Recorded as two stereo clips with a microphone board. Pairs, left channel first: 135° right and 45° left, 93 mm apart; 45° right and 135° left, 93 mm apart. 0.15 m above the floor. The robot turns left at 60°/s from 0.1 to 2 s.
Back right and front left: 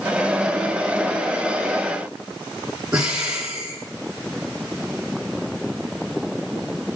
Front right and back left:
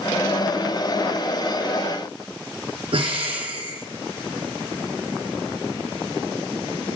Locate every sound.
2.9 s breathing: 125° left, 4.5 m